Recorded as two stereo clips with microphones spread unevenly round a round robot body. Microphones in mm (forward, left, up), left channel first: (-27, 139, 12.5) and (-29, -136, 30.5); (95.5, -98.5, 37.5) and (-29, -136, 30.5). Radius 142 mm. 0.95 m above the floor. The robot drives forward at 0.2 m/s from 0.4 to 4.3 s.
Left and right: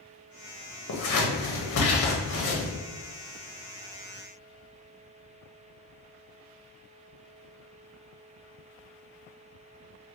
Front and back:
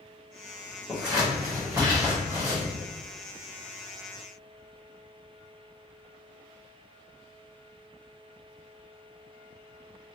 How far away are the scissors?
About 0.8 m.